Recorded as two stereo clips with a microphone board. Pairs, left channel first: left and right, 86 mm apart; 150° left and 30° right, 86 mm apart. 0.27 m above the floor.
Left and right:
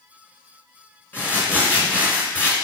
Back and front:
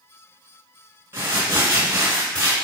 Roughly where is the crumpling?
Ahead left.